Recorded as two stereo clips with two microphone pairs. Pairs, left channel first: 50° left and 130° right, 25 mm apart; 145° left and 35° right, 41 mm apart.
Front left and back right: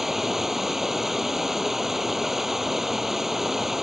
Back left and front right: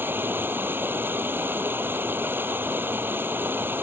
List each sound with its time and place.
0.0 s running water: 55° right